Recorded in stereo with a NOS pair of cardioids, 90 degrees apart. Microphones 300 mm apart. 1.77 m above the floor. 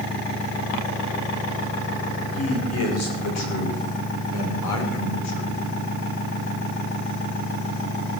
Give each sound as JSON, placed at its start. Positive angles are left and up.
{"t": 2.3, "sound": "a man speaking", "azimuth_deg": 50, "distance_m": 7.0}